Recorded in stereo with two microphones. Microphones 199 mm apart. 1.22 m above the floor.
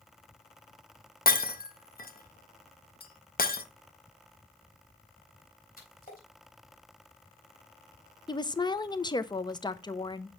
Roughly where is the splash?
Left.